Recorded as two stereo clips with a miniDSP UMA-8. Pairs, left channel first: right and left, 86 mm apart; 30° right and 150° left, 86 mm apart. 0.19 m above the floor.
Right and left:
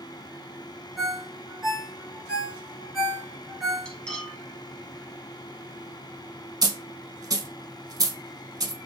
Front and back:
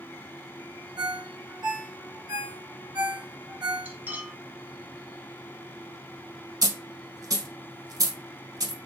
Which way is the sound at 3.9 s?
165° right.